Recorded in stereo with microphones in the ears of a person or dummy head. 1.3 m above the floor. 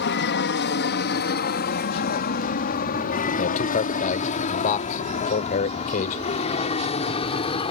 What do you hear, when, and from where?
0.0 s an aircraft: 55° left (ahead or behind); by 7.7 s 30° left (ahead or behind)
3.4 s a man speaking: 45° left (ahead or behind)